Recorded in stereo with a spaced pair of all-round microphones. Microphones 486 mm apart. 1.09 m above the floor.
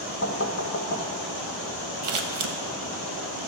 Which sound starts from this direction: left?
Knocking, at 0.2 s.